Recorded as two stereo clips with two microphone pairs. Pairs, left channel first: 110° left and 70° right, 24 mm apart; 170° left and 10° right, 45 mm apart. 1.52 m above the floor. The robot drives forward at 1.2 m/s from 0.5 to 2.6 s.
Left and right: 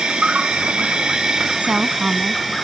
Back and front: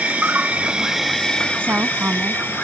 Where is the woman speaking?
50° right; by 2.4 s 55° right.